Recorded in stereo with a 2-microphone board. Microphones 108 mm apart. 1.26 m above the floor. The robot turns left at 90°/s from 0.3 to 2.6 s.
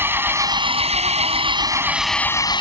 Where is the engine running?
20° right; by 2.6 s 130° left.